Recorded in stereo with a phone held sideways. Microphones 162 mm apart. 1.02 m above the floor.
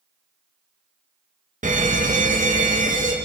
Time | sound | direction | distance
1.6 | a fire alarm | 55° right (ahead or behind) | 1.8 m